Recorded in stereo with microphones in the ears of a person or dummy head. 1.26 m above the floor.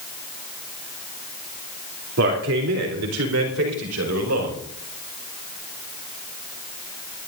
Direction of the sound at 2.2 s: 60° right (ahead or behind).